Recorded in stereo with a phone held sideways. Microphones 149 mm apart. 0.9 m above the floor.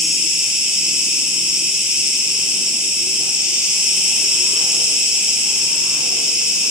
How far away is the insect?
About 3.5 m.